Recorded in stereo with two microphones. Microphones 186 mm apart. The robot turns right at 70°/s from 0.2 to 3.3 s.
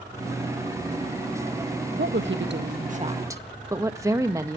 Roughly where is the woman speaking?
Right.